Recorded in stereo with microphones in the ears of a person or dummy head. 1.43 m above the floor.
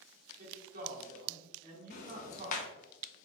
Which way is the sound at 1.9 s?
45° left (ahead or behind).